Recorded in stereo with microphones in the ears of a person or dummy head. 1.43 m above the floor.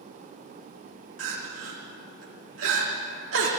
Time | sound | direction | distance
1.2 | crying | 80° right | 2.5 m